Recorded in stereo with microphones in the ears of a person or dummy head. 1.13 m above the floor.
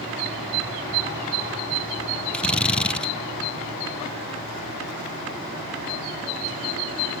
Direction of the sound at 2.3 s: 5° left (ahead or behind).